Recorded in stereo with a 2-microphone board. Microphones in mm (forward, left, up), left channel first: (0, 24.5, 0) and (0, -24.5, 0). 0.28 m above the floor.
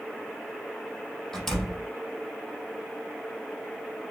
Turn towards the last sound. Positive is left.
turn(degrees=10)  # may be behind; listen again after turning